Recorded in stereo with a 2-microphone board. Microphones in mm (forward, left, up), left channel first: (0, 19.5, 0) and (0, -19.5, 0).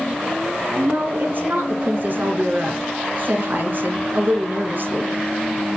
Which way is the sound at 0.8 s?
50° right (ahead or behind).